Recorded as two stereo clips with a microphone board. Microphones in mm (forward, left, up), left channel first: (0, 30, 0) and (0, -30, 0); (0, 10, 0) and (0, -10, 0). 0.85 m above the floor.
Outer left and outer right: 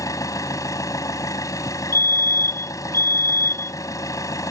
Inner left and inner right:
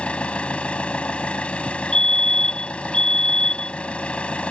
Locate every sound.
0.0 s an engine running: 75° left (ahead or behind)
1.9 s a fire alarm: 50° left (ahead or behind)